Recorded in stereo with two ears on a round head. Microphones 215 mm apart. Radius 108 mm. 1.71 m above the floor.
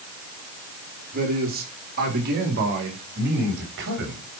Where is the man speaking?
35° right (ahead or behind), 4 m; by 4.2 s 50° right (ahead or behind), 5 m.